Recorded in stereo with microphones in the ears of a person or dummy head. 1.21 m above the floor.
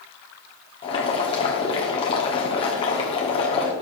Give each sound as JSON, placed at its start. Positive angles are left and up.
{"t": 0.8, "sound": "boiling", "side_deg": 25, "distance_m": 1.2}